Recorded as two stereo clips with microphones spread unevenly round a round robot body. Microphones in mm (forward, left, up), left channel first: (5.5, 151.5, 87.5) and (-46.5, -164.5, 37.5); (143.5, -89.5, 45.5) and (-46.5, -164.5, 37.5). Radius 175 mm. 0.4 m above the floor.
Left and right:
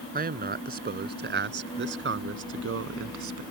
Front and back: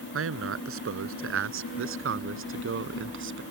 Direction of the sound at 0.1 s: 165° right.